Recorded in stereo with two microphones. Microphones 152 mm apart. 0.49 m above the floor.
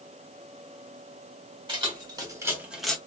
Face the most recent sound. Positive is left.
turn(degrees=5)  # may be behind; listen again after turning